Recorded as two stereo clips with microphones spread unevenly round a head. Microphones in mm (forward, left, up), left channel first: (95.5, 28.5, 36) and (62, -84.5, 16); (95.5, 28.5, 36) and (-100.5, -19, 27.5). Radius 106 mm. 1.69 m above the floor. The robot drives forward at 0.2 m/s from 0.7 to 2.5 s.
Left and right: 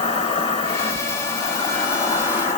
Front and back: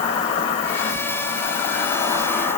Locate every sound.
0.0 s an insect: 70° left, 1.7 m; by 2.6 s 85° left, 1.6 m